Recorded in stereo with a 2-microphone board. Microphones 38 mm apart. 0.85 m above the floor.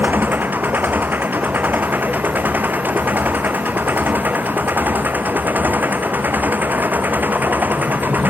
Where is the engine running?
55° right (ahead or behind).